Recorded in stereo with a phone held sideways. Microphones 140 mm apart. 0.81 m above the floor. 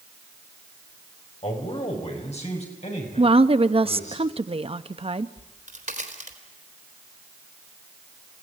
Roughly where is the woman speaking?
Right.